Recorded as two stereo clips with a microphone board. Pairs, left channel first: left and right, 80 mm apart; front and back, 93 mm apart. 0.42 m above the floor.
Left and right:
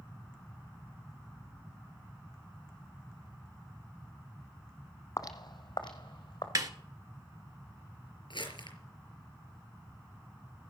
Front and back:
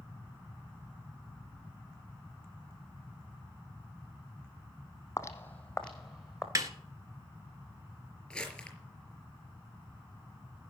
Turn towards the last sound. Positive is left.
turn(degrees=85)